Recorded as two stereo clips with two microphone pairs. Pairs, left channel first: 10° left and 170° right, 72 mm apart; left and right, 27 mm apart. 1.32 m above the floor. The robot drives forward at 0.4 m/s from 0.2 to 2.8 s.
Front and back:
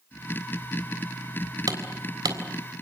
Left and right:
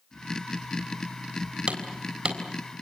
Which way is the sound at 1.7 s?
140° right.